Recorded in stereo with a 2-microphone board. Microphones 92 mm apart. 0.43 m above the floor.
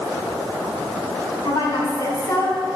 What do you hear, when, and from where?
1.4 s a woman speaking: 55° left (ahead or behind), 3.5 m; by 2.6 s 40° left (ahead or behind), 3 m